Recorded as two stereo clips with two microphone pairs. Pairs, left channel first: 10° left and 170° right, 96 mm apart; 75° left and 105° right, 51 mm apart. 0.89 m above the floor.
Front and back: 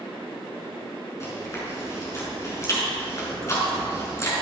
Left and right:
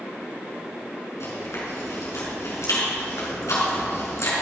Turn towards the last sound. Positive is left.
turn(degrees=65)